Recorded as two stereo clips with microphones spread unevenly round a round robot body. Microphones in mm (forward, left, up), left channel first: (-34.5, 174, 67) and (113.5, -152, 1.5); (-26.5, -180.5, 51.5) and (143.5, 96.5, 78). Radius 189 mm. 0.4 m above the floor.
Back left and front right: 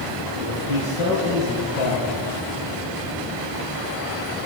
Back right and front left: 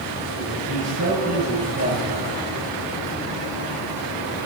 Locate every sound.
0.3 s a man speaking: 110° left, 9.5 m; by 2.1 s 105° left, 10 m